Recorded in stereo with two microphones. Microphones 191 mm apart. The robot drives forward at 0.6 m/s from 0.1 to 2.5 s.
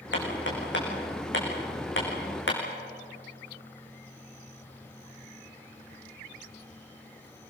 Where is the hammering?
70° left (ahead or behind), 6.5 m; by 2.6 s 80° left, 6 m.